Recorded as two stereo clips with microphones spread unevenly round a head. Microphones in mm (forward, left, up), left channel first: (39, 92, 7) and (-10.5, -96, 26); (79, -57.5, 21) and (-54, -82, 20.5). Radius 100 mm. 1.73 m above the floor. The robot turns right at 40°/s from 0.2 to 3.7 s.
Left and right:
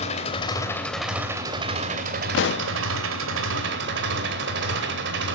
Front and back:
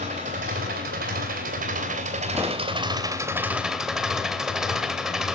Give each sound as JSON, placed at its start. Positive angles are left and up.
{"t": 0.0, "sound": "an engine running", "azimuth_deg": 135, "distance_m": 3.0}
{"t": 2.3, "sound": "a pop", "azimuth_deg": 105, "distance_m": 0.5}